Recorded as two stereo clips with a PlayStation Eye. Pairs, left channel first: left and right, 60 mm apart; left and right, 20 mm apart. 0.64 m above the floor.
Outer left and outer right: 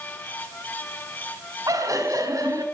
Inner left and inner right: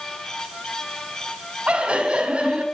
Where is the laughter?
70° right (ahead or behind), 4.5 m.